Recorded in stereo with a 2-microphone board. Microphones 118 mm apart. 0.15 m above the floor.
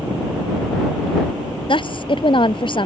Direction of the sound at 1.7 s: 45° left (ahead or behind).